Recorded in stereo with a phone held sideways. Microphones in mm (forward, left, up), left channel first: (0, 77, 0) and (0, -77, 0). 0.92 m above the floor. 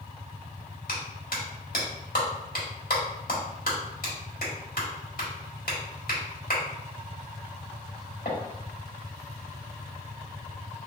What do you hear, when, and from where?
0.9 s a clap: 70° left (ahead or behind), 1.5 m